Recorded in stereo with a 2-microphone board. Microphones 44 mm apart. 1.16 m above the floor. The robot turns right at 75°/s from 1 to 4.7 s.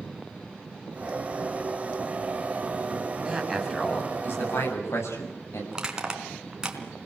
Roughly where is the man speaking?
Ahead right.